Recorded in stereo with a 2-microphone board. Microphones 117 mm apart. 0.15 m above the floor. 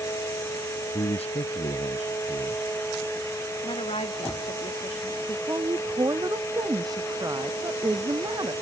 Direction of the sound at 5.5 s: 35° right (ahead or behind).